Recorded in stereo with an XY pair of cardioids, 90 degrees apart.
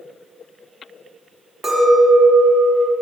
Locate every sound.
1.6 s a clink: 30° right, 1.9 m